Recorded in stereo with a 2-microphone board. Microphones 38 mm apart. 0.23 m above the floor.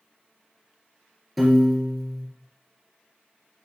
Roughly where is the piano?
Centre.